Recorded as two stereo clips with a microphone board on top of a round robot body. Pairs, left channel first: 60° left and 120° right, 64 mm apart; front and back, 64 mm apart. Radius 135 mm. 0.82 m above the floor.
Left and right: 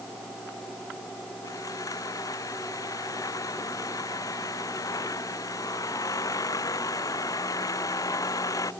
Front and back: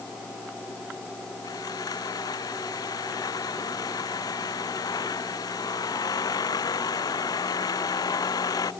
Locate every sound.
1.4 s sawing: 25° left